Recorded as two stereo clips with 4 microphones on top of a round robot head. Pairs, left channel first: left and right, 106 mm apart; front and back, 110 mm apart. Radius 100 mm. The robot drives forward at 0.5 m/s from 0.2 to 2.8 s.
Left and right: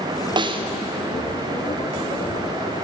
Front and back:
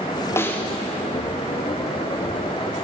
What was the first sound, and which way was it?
A snare drum, 60° right.